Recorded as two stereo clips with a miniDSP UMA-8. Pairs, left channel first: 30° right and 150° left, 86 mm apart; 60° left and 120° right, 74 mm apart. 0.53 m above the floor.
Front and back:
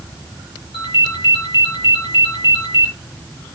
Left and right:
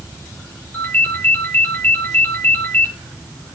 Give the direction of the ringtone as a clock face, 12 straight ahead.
12 o'clock.